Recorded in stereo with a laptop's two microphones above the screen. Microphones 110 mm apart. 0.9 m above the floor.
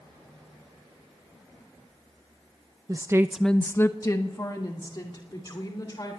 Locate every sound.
2.9 s a woman speaking: 35° right (ahead or behind), 0.7 m; by 6.2 s 40° left (ahead or behind), 3.5 m